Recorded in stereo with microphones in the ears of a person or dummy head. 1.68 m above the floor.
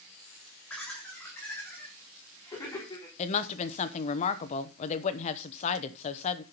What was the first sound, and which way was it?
Laughter, 10° left (ahead or behind).